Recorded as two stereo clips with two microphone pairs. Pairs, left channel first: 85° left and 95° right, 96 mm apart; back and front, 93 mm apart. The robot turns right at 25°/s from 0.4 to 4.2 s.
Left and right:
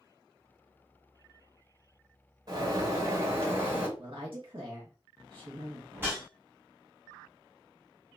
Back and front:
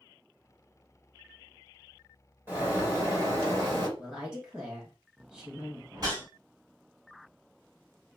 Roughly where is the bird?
Ahead right.